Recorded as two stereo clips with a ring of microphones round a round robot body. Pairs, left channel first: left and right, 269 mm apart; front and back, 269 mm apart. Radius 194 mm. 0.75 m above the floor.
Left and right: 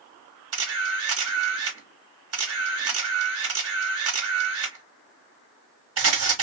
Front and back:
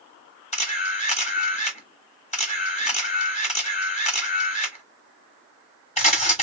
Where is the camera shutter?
65° right, 1.4 m.